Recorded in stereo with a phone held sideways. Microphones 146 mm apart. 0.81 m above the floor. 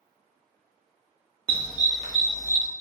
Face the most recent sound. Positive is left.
turn(degrees=-65)  # may be behind; listen again after turning